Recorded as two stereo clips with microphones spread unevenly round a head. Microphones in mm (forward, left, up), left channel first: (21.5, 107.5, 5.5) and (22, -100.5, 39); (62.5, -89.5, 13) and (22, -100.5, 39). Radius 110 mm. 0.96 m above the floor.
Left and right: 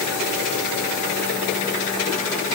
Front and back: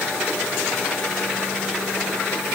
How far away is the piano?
No piano in this recording.